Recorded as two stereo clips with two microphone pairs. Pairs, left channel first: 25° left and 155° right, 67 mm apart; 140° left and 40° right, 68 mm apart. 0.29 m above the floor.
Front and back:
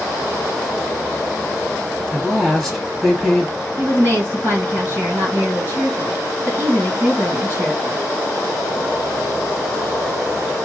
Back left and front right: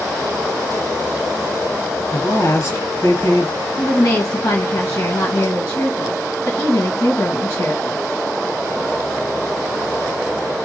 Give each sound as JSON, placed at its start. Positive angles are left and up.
{"t": 2.1, "sound": "a woman speaking", "azimuth_deg": 115, "distance_m": 2.5}
{"t": 3.8, "sound": "a woman speaking", "azimuth_deg": 150, "distance_m": 2.0}